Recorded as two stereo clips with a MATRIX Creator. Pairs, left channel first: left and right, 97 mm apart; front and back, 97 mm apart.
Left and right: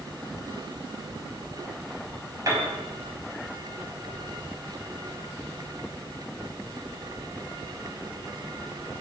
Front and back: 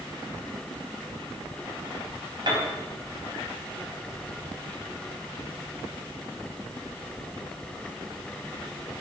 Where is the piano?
145° right, 4 m.